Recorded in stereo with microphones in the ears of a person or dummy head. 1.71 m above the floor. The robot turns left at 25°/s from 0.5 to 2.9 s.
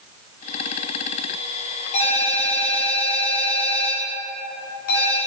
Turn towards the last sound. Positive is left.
turn(degrees=55)  # may be behind; listen again after turning